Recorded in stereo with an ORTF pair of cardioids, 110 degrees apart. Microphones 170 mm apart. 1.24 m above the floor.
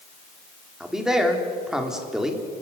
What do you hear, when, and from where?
0.8 s a man speaking: 5° right, 3.5 m